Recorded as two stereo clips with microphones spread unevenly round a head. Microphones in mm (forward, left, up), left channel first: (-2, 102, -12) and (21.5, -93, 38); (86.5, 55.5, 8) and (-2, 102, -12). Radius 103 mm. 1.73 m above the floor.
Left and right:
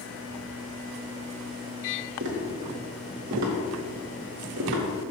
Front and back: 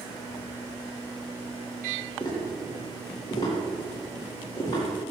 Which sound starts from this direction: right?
Tapping, at 2.2 s.